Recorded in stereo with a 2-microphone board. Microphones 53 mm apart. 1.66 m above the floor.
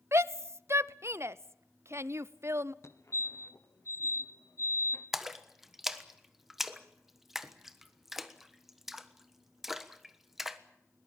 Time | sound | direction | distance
0.1 | a shout | 60° right (ahead or behind) | 0.7 m
2.8 | a fire alarm | 65° left (ahead or behind) | 1.6 m
5.1 | a splash | 5° right (ahead or behind) | 1.3 m